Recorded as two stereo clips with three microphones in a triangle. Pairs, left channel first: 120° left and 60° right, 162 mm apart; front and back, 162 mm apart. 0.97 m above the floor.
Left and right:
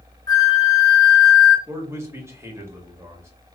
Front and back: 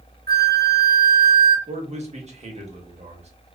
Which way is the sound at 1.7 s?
135° right.